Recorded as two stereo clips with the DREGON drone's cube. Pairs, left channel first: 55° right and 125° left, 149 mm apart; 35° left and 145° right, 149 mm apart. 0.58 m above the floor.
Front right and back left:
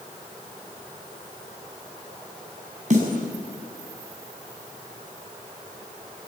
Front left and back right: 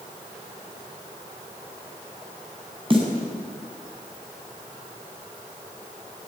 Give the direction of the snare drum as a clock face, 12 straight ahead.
7 o'clock.